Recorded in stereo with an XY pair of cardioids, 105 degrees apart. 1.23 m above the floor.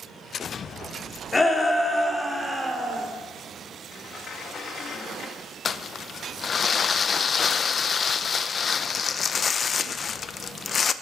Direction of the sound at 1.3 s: 25° left.